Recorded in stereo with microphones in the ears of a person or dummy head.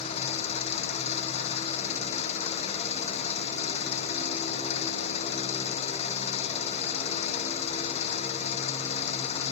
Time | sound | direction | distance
0.0 | an engine running | 40° left (ahead or behind) | ?